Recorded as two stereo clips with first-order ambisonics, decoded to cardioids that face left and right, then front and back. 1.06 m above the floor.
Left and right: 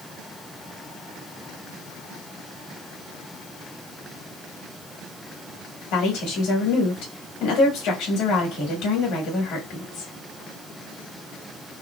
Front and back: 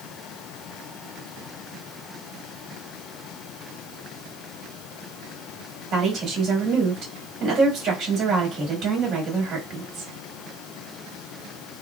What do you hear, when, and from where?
5.9 s a woman speaking: 120° left, 1.5 m